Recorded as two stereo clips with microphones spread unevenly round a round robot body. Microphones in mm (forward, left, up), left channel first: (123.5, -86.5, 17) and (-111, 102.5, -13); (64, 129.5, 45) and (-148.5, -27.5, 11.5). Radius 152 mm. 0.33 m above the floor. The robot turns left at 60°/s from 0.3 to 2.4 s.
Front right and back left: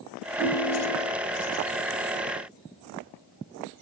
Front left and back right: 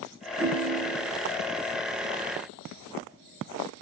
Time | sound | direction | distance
0.4 | a ringtone | 135° right | 0.9 m